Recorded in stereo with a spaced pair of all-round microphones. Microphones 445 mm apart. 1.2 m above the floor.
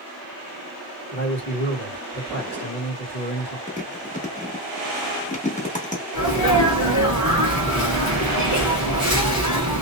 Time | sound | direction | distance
1.1 | a man speaking | 35° left (ahead or behind) | 1.6 m
3.7 | chewing | 15° left (ahead or behind) | 0.9 m
6.1 | a sneeze | 40° left (ahead or behind) | 1.2 m